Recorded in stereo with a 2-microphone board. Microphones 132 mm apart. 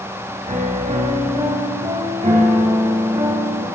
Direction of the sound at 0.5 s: 75° right (ahead or behind).